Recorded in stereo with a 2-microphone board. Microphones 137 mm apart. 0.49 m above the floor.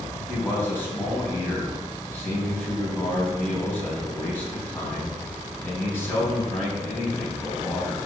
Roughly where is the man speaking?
Centre.